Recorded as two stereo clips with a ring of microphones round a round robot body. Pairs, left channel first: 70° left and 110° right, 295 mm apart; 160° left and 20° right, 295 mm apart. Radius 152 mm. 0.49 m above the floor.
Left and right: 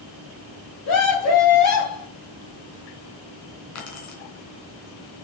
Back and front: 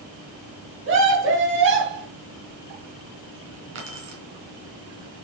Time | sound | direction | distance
0.8 | a scream | 30° left | 3 m
3.8 | keys jangling | 30° left | 3.5 m